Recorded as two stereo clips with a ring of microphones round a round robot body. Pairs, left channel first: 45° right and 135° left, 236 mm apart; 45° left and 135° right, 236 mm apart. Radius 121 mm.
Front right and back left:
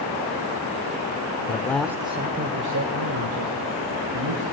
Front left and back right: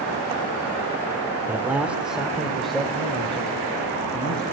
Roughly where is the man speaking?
Ahead right.